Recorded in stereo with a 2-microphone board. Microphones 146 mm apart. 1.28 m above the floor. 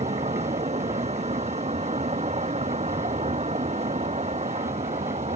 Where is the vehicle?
45° right (ahead or behind).